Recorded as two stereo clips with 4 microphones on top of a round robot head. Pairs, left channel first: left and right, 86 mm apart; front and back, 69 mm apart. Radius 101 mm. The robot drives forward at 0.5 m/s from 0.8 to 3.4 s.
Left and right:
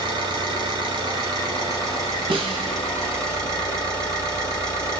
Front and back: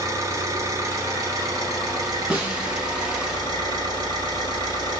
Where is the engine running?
125° right, 2 m; by 5.0 s 145° right, 3 m.